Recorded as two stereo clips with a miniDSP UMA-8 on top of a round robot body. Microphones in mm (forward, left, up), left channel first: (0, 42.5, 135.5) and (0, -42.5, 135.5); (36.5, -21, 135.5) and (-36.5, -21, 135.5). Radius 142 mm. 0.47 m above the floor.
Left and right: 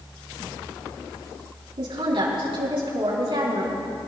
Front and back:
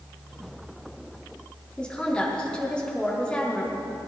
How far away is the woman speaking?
About 5.5 m.